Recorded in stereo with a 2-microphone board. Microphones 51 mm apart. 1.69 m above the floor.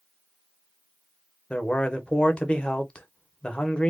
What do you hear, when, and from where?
1.5 s a man speaking: 25° left (ahead or behind), 0.9 m